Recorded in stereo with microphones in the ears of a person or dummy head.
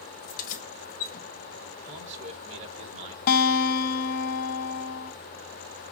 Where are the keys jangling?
50° left (ahead or behind), 1.1 m.